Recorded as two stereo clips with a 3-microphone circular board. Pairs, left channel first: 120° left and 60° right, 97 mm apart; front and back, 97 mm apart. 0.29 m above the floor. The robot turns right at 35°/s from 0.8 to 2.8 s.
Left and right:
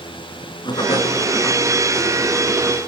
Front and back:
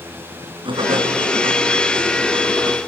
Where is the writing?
155° left, 4.5 m; by 2.8 s 135° right, 4.5 m.